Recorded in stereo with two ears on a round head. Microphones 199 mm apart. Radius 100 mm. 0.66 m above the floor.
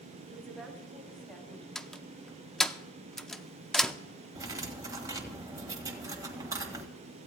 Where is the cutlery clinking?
15° right (ahead or behind), 1.8 m.